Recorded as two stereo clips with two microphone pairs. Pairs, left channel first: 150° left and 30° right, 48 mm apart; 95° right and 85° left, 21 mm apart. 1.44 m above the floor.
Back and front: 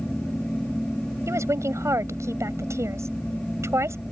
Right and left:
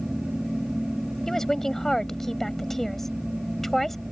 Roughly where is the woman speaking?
Ahead right.